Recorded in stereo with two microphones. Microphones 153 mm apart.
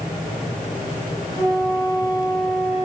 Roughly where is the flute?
Right.